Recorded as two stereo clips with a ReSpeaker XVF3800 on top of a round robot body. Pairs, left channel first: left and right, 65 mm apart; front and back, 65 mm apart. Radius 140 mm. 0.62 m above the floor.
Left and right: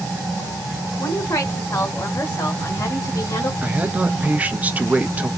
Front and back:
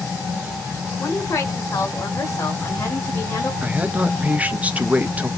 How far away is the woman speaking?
About 3 m.